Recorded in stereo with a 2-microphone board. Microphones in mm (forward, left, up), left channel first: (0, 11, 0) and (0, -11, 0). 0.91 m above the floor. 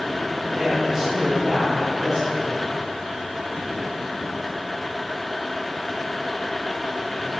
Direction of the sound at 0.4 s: 15° right (ahead or behind).